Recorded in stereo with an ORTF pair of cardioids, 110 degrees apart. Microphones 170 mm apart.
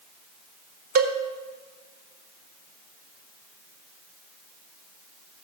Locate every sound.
0.9 s a cowbell: 70° right, 1.2 m